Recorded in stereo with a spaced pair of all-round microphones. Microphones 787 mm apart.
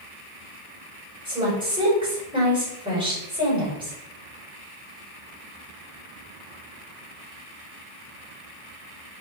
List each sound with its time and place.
1.2 s a woman speaking: 5° right (ahead or behind), 5.5 m